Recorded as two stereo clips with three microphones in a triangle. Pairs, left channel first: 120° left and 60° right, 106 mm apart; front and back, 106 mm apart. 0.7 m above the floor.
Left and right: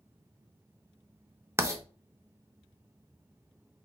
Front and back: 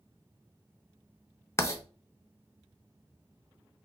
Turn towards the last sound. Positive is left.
turn(degrees=-30)